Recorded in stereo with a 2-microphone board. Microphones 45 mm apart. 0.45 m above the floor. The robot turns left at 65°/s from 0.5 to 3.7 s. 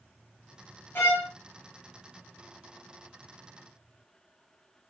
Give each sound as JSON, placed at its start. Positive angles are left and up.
{"t": 0.9, "sound": "a violin", "side_deg": 65, "distance_m": 1.0}